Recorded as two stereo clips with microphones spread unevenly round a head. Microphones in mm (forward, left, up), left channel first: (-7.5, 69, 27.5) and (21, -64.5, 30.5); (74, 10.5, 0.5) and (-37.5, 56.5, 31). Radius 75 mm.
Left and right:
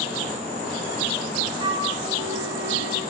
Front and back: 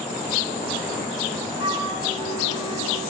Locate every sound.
1.6 s a flute: 140° right, 5.5 m